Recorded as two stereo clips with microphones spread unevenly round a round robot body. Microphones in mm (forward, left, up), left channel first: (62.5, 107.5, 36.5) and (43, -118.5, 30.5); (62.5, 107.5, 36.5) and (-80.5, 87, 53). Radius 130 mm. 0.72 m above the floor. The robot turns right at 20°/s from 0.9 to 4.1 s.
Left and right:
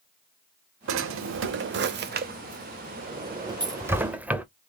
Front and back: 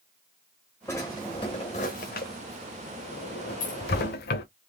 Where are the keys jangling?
25° right, 1.3 m; by 3.8 s 20° right, 1.3 m.